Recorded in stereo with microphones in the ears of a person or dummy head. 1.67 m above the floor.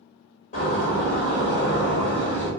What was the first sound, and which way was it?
A door slam, 45° left (ahead or behind).